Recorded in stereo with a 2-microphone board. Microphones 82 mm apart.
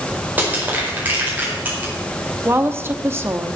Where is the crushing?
20° right (ahead or behind), 4.5 m.